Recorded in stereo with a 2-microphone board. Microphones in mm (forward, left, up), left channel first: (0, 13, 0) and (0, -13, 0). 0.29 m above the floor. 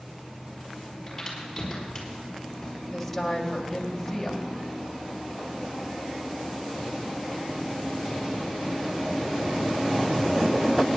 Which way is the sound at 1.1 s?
10° left (ahead or behind).